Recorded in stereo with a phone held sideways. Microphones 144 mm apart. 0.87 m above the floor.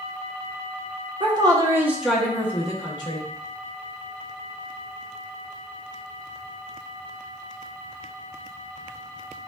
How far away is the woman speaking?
About 0.9 m.